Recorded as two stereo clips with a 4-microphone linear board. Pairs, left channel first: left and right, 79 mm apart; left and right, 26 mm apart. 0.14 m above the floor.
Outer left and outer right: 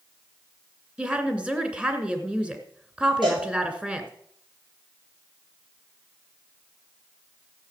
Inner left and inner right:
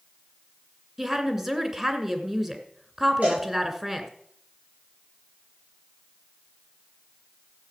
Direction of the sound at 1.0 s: 15° right (ahead or behind).